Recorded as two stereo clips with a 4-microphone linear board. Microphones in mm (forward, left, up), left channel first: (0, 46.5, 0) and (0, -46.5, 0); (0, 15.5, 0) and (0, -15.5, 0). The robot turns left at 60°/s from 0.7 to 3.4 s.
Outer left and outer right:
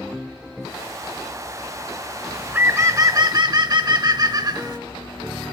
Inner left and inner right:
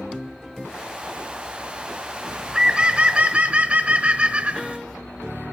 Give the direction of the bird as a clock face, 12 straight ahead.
12 o'clock.